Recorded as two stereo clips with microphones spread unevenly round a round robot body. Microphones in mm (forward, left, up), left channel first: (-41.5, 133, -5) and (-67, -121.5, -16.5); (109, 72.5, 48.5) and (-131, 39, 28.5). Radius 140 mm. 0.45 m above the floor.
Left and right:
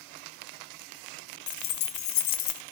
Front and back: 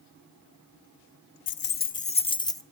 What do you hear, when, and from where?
1.5 s keys jangling: 40° left, 0.7 m; by 2.6 s 85° left, 1.1 m